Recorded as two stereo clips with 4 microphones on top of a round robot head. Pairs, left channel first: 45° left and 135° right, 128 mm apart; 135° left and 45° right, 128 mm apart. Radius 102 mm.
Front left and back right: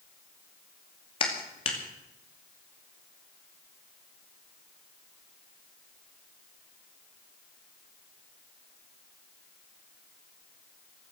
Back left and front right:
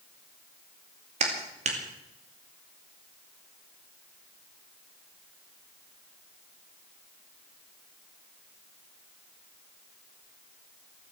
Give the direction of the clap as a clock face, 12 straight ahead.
12 o'clock.